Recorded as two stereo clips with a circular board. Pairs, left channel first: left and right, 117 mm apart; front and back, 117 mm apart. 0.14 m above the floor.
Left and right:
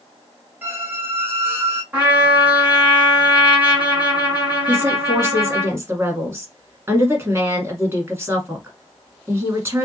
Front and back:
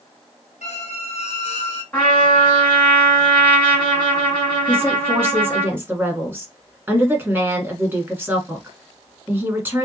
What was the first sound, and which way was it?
A squeak, 15° right.